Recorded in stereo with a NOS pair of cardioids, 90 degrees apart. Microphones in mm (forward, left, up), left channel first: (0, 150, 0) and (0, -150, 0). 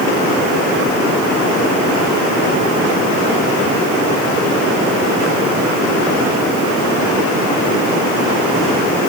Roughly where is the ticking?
No ticking in this recording.